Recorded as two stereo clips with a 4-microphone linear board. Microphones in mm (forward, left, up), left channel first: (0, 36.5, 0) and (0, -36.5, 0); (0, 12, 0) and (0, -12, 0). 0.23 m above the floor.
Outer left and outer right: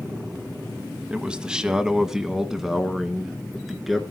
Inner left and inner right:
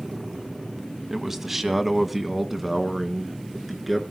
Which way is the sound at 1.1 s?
15° right (ahead or behind).